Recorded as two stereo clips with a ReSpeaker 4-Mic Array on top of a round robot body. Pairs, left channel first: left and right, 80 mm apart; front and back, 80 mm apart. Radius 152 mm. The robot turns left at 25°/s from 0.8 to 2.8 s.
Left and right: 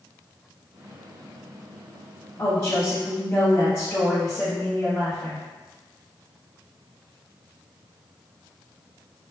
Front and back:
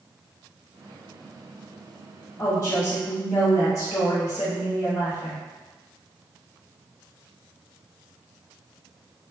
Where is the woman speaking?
35° left, 1.4 m; by 5.4 s 25° left, 1.4 m.